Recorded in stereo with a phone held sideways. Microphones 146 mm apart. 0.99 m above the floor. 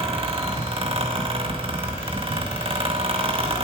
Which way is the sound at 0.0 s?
40° right (ahead or behind).